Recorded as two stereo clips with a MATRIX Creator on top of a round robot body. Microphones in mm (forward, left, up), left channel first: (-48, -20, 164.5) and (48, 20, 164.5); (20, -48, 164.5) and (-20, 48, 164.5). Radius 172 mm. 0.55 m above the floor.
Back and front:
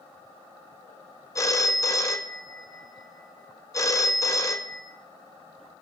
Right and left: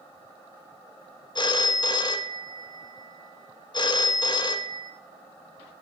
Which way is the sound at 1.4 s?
100° right.